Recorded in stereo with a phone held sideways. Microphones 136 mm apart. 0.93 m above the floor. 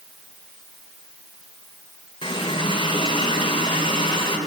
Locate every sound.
2.2 s a running tap: 40° left (ahead or behind), 2 m